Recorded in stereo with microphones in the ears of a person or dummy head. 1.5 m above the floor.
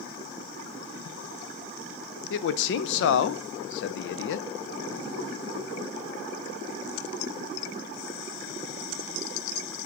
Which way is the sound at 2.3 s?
75° left (ahead or behind).